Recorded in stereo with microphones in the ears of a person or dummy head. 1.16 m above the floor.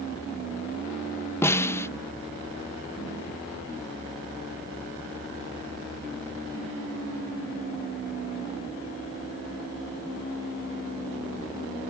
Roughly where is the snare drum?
Centre.